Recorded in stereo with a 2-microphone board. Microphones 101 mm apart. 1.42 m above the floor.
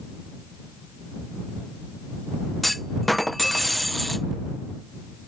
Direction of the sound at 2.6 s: Centre (ahead or behind).